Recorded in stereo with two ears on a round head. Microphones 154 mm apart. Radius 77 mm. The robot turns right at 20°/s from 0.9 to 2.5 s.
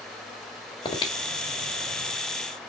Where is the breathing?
25° left (ahead or behind), 1.9 m; by 2.1 s 40° left (ahead or behind), 1.9 m.